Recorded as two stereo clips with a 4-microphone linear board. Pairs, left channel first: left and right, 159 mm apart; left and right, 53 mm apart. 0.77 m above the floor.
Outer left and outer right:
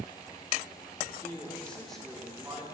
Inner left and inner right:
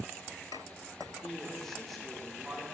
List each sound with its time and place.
1.1 s a man speaking: 20° left (ahead or behind), 1.5 m; by 2.6 s 5° right (ahead or behind), 2 m